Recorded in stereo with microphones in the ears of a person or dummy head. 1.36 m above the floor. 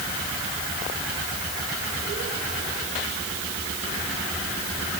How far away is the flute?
I don't hear a flute.